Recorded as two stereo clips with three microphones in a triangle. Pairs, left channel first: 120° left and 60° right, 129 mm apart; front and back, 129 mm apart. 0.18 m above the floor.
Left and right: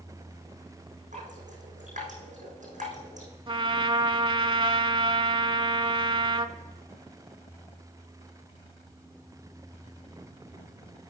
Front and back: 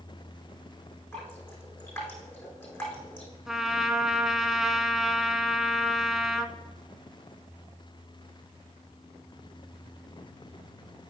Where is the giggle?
I don't hear a giggle.